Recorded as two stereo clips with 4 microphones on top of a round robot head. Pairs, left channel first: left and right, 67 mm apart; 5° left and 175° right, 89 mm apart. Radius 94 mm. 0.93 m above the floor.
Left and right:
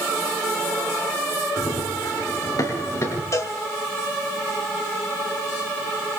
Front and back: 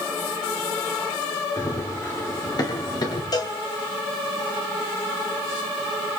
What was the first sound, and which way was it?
Running footsteps, 55° left.